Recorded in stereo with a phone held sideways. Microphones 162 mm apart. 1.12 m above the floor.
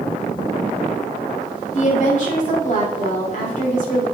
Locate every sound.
1.7 s a woman speaking: 50° left (ahead or behind), 3 m